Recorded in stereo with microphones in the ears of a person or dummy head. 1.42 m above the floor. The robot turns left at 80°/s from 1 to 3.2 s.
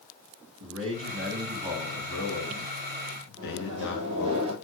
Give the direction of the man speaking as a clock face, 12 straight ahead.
4 o'clock.